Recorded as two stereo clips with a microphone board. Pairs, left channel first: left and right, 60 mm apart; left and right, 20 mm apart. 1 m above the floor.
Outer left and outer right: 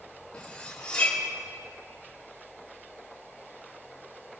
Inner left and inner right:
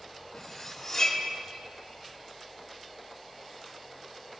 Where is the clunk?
No clunk in this recording.